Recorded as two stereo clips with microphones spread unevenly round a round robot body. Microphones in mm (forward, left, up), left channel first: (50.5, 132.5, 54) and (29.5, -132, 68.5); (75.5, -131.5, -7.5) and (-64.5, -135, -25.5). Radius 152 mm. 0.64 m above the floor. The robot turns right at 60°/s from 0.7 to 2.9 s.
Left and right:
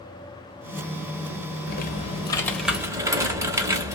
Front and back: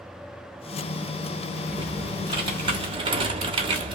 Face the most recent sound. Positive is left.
turn(degrees=-170)